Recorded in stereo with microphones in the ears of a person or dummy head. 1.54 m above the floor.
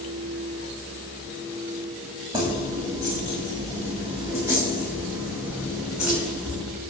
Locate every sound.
2.3 s keys jangling: 20° right (ahead or behind), 6 m; by 6.6 s 5° right (ahead or behind), 10.5 m